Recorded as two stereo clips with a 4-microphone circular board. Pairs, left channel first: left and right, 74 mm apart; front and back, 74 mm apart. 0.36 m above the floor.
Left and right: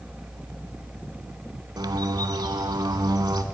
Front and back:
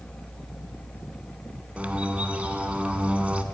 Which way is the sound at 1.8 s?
110° right.